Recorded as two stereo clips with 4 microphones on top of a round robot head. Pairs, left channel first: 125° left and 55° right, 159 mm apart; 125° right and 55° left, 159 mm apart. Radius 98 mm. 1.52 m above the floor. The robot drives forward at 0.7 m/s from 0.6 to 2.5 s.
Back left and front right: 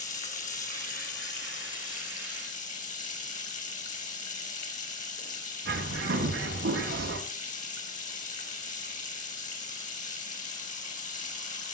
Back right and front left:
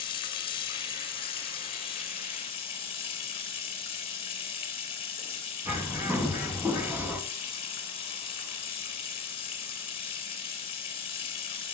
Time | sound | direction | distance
0.0 | running water | 170° left | 3.5 m
5.7 | a bird | 25° right | 3 m